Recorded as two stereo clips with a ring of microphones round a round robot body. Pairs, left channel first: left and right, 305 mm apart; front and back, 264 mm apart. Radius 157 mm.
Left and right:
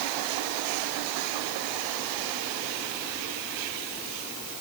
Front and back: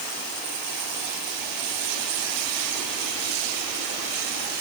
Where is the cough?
No cough in this recording.